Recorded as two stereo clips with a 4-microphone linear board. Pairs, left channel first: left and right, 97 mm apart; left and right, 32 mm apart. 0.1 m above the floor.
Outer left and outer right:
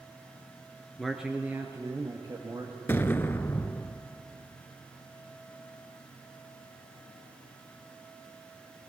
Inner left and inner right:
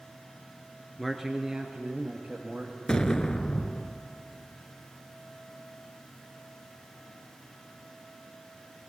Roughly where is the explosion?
Left.